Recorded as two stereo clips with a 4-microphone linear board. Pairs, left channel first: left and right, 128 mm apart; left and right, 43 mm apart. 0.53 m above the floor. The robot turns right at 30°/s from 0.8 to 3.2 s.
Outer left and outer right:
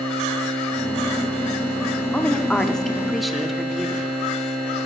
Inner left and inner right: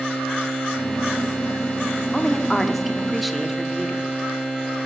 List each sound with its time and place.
2.1 s a woman speaking: 10° left (ahead or behind), 0.6 m; by 4.1 s centre (ahead or behind), 0.6 m